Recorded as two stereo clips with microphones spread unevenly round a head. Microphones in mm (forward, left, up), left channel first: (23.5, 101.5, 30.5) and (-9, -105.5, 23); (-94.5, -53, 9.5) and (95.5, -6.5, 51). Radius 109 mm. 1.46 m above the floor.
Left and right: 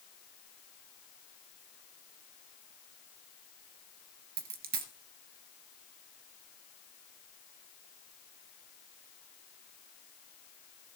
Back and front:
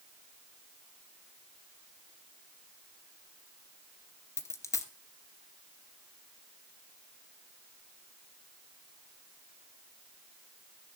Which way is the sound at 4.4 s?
80° right.